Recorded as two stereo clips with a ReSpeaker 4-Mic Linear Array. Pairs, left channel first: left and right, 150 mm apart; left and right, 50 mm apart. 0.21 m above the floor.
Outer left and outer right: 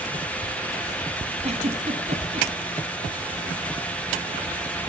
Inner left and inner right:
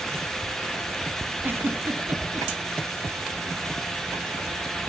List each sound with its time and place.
1.4 s a giggle: 45° right (ahead or behind), 1.0 m